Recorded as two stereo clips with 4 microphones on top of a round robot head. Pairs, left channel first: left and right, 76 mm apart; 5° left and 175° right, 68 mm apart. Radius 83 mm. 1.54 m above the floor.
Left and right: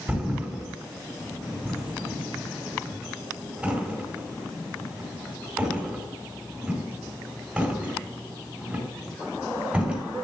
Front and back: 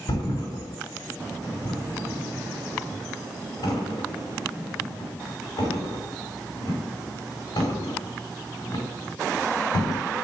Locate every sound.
0.1 s a thud: 10° right, 5.5 m